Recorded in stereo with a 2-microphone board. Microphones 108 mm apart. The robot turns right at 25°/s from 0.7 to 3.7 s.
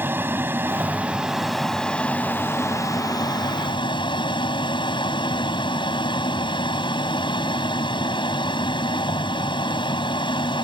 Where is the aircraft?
20° right; by 10.6 s 55° left.